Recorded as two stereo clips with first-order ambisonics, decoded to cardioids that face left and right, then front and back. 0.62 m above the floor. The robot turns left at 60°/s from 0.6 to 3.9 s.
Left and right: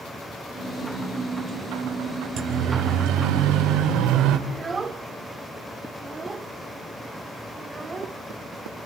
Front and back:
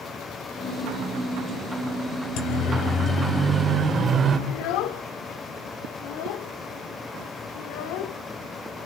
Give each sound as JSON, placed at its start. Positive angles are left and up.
{"t": 2.4, "sound": "a siren", "azimuth_deg": -35, "distance_m": 4.5}
{"t": 4.5, "sound": "a child speaking", "azimuth_deg": -15, "distance_m": 1.2}